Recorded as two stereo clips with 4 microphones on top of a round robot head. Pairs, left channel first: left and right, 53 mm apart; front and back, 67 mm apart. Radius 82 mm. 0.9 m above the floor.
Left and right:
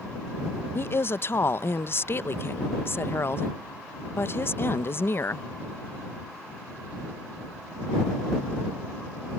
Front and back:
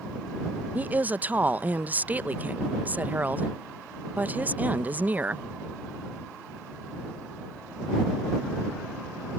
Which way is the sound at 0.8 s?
120° left.